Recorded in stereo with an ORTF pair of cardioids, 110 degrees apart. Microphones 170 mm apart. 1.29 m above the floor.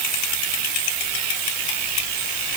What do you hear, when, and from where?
Only background noise.